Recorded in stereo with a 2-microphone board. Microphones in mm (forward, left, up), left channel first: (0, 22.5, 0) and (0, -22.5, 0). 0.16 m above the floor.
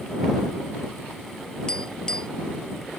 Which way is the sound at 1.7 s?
20° left (ahead or behind).